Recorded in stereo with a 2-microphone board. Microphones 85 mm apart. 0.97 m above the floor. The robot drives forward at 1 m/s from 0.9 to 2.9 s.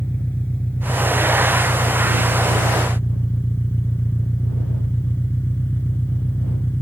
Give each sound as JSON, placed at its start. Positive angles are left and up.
{"t": 0.0, "sound": "an engine running", "side_deg": 20}